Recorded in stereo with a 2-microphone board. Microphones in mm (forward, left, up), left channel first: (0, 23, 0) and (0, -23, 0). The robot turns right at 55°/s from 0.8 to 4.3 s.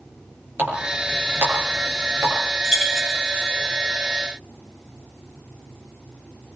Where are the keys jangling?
20° right (ahead or behind), 7.5 m; by 3.5 s 25° left (ahead or behind), 7.5 m.